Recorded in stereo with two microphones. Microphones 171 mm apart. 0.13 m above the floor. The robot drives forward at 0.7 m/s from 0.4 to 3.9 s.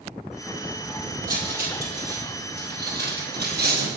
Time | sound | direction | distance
1.3 | cutlery clinking | 55° right (ahead or behind) | 3 m